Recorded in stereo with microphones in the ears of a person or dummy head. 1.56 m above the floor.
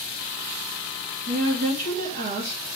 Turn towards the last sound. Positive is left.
turn(degrees=-45)  # may be behind; listen again after turning